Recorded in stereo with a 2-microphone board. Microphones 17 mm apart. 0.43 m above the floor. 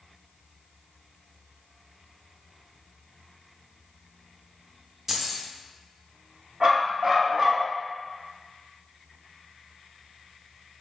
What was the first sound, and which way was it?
Keys jangling, 15° right (ahead or behind).